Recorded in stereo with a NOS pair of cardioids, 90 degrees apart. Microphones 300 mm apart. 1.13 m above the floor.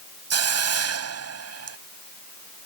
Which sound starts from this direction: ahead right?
A hiss, at 0.3 s.